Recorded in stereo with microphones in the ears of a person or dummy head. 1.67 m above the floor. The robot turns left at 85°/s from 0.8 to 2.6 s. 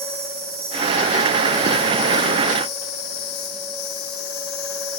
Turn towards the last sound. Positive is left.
turn(degrees=65)